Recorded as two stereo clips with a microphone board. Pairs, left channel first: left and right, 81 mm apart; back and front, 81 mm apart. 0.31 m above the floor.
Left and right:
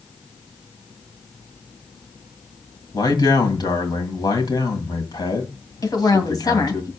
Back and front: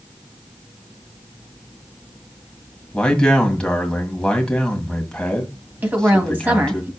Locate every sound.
2.9 s a man speaking: 100° left, 1.9 m
5.8 s a woman speaking: 60° left, 2 m